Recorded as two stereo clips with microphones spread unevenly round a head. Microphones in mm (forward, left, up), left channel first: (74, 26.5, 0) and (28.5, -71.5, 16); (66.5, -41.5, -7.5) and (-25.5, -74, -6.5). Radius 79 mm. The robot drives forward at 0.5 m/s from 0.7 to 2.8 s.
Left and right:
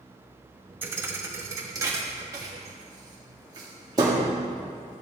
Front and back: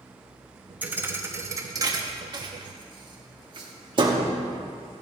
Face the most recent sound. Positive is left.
turn(degrees=-160)